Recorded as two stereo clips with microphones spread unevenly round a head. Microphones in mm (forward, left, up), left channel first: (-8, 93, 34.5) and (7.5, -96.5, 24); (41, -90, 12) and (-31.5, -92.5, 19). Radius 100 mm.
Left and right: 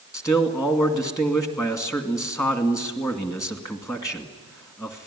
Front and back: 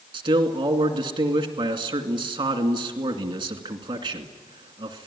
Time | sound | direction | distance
0.1 | a man speaking | 170° left | 2.5 m